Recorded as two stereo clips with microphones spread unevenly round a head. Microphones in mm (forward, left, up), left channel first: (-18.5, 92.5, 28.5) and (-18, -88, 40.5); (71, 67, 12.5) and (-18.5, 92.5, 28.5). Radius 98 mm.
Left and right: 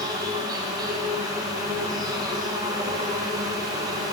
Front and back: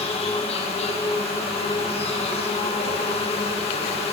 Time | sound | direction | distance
0.0 | an insect | 20° right | 0.9 m